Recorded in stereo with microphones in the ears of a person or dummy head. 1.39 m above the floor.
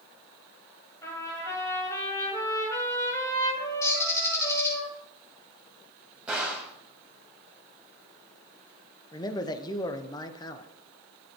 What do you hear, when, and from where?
1.0 s a trumpet: 15° left (ahead or behind), 7 m
3.8 s a bird: 15° left (ahead or behind), 5 m
6.3 s a gunshot: centre (ahead or behind), 3.5 m
9.1 s a man speaking: 25° left (ahead or behind), 1.1 m